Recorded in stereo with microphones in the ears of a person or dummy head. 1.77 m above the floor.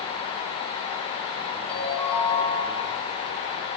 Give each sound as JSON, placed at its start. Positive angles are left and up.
{"t": 1.7, "sound": "a ringtone", "side_deg": 5, "distance_m": 4.5}